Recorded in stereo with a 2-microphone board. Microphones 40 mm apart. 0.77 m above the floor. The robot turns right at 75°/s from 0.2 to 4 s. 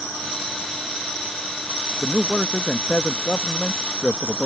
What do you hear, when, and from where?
2.0 s a man speaking: 5° right; by 4.5 s 145° left